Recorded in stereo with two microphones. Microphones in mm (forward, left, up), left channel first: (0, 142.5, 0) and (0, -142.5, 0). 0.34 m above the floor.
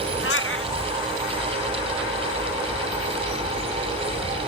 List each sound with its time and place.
0.2 s a cat meowing: 45° left (ahead or behind)